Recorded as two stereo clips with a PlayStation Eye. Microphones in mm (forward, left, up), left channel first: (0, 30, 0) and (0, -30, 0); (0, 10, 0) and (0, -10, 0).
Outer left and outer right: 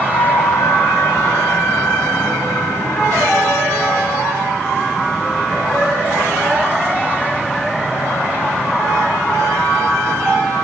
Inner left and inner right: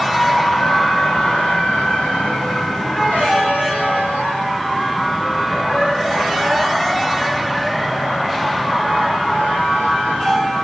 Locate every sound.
0.1 s a flute: 70° left (ahead or behind), 1.4 m